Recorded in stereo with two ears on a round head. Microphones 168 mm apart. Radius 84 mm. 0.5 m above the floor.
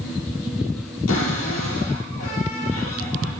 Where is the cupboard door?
80° left, 8.5 m.